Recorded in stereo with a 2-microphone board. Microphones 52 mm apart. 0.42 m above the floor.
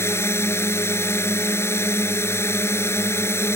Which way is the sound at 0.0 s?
55° left (ahead or behind).